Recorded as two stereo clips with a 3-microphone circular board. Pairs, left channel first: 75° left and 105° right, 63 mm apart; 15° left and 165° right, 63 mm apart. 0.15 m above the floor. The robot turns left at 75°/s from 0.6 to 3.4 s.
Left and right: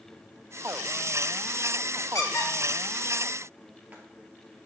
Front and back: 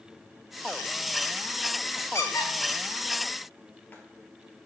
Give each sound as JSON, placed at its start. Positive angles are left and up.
{"t": 2.1, "sound": "a squeak", "azimuth_deg": 50, "distance_m": 0.9}